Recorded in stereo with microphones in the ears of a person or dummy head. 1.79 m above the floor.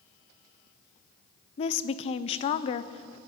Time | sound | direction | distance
1.6 | a woman speaking | 40° left (ahead or behind) | 0.8 m